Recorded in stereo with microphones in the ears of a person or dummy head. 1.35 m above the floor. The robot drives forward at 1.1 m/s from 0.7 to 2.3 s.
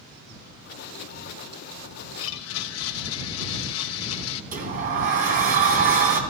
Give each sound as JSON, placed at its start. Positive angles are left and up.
{"t": 2.2, "sound": "a blender", "side_deg": 70, "distance_m": 1.1}
{"t": 4.5, "sound": "a sliding door", "side_deg": -40, "distance_m": 2.5}